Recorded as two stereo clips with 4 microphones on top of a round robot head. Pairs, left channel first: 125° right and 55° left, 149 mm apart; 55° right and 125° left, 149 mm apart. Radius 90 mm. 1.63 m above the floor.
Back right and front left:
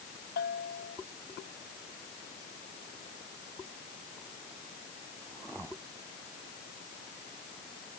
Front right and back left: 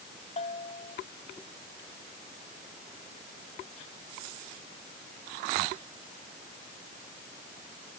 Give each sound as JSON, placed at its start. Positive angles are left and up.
{"t": 0.4, "sound": "a bell", "azimuth_deg": -105}